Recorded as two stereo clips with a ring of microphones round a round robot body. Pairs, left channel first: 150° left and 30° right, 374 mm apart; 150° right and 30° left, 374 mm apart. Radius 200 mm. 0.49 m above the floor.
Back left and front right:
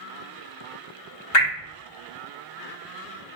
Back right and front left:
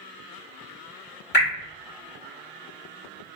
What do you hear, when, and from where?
1.3 s dripping: 155° left, 1.6 m